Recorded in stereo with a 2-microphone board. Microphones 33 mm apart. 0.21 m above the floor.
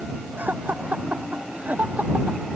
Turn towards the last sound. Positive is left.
turn(degrees=-65)  # may be behind; listen again after turning